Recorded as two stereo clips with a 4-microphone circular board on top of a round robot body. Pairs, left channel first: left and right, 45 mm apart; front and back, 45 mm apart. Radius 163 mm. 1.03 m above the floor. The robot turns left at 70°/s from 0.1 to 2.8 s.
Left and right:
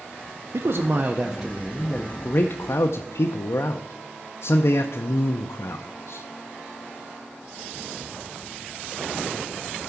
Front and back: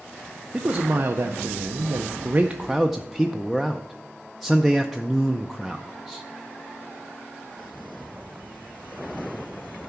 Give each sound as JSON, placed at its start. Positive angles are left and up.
{"t": 0.5, "sound": "a man speaking", "azimuth_deg": -110, "distance_m": 0.6}